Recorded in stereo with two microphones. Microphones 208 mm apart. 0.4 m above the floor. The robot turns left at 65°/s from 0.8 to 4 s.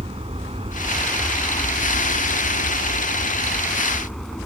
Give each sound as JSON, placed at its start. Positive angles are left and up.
{"t": 0.0, "sound": "an aircraft", "azimuth_deg": -150}